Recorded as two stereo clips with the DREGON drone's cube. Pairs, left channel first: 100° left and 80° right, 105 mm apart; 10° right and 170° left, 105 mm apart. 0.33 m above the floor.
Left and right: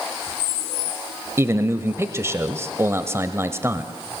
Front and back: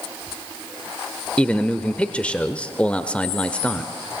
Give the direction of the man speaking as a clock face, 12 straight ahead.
3 o'clock.